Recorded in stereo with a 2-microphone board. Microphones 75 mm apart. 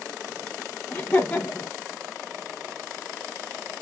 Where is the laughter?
30° left (ahead or behind), 1.9 m.